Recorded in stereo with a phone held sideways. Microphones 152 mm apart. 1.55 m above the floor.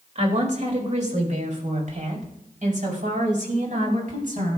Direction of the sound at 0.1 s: 50° right (ahead or behind).